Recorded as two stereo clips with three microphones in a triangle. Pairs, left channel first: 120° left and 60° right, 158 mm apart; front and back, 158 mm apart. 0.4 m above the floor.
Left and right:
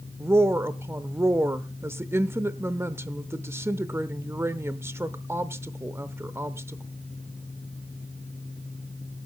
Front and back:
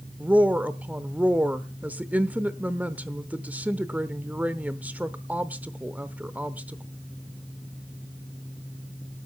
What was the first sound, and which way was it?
A woman speaking, 115° right.